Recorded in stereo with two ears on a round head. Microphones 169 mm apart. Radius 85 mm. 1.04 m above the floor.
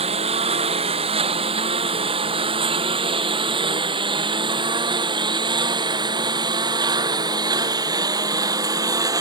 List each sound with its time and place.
0.0 s a lawn mower: 35° right (ahead or behind); by 9.2 s 20° right (ahead or behind)